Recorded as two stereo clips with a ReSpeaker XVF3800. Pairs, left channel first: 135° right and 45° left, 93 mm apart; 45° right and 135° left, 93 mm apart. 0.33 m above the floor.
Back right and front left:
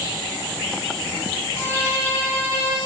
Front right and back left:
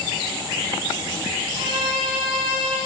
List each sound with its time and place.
1.6 s a violin: 155° left, 2 m